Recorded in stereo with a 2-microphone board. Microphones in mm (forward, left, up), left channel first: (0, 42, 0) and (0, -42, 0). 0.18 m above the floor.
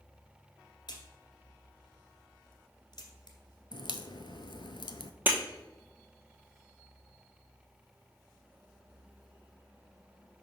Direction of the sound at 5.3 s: 20° right (ahead or behind).